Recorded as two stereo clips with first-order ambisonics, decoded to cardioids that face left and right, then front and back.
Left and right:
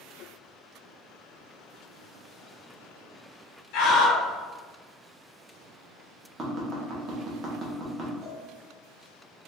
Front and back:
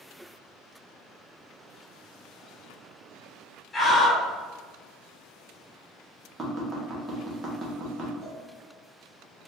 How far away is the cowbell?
About 1.0 m.